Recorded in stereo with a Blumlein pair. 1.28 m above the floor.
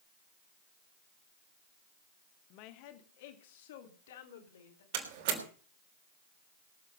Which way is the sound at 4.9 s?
50° right.